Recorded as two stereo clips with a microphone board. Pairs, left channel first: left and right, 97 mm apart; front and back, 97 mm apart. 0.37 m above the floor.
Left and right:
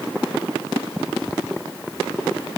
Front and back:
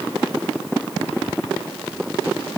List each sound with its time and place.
Only background noise.